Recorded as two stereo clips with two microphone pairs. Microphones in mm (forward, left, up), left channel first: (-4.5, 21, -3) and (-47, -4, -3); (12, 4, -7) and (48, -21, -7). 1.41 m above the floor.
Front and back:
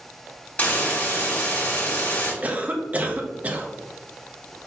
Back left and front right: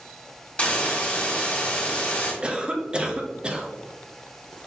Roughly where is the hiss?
Left.